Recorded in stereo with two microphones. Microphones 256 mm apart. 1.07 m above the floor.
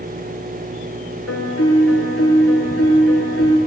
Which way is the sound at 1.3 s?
70° left (ahead or behind).